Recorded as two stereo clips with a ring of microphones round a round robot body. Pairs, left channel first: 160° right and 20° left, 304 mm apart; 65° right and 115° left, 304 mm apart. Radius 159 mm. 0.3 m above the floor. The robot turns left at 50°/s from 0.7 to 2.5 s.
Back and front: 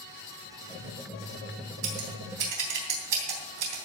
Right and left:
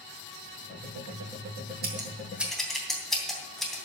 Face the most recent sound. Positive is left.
turn(degrees=20)